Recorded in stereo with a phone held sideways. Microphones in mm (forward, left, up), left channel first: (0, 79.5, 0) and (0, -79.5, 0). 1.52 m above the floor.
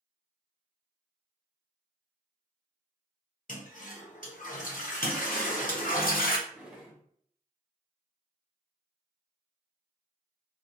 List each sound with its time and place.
3.5 s a toilet flushing: 65° left (ahead or behind), 0.8 m
5.0 s a toilet flushing: 70° left (ahead or behind), 0.7 m
6.5 s a drawer: 5° right (ahead or behind), 1.2 m